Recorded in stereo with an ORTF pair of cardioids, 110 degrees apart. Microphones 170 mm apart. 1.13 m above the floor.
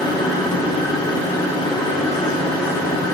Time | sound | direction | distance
0.0 | a machine running | 25° left | 3 m